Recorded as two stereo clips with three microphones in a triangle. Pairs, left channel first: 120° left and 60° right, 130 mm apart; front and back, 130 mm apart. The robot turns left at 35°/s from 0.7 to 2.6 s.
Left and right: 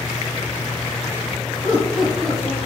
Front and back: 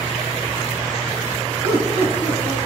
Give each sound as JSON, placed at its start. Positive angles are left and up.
{"t": 1.6, "sound": "laughter", "azimuth_deg": -140, "distance_m": 3.0}